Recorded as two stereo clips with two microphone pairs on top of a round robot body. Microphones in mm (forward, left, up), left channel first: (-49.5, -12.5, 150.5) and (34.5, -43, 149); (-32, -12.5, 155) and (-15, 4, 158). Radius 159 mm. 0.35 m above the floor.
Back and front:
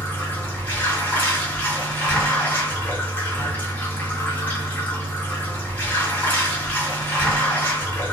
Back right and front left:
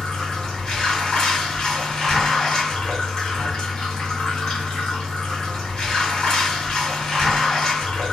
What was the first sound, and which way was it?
Running water, 140° right.